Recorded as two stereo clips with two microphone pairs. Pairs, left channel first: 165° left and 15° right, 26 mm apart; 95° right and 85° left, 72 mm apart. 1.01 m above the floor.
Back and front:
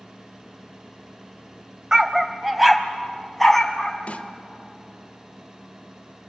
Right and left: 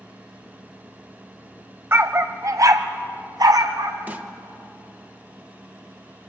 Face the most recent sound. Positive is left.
turn(degrees=140)